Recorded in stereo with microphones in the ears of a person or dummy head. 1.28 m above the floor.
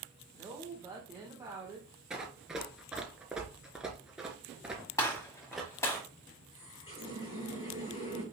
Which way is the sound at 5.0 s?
15° left (ahead or behind).